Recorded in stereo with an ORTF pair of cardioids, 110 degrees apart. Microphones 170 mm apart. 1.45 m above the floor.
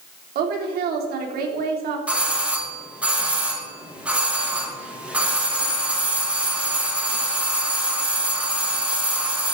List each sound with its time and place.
0.3 s a woman speaking: 65° right, 3.5 m
2.1 s a doorbell: 5° right, 3 m